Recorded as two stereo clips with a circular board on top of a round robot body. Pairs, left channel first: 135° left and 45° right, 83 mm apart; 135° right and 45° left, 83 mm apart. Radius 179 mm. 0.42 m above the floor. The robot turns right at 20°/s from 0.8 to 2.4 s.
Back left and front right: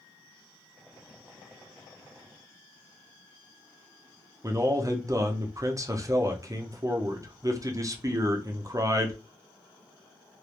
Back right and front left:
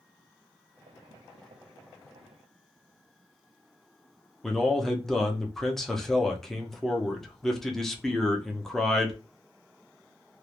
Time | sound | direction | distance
4.4 | a man speaking | 50° right | 0.8 m